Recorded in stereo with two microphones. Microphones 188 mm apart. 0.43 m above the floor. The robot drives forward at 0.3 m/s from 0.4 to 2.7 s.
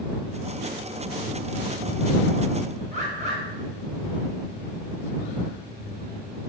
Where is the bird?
40° right (ahead or behind), 0.6 m.